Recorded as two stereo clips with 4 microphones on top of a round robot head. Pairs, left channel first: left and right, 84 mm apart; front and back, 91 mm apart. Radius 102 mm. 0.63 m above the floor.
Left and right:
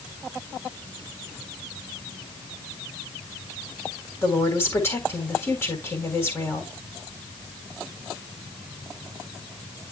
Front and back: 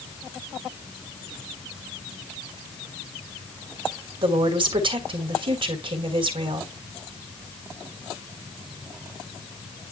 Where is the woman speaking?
155° left, 3.5 m.